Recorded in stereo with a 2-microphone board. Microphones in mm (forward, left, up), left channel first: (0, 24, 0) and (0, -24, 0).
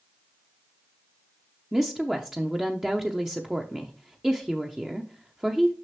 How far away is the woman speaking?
About 0.7 m.